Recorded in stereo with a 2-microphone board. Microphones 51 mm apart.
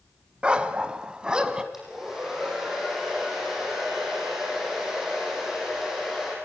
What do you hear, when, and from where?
0.4 s a dog barking: 20° right (ahead or behind), 1.3 m; by 1.6 s 15° right (ahead or behind), 1.9 m
1.7 s a hair dryer: 10° right (ahead or behind), 9 m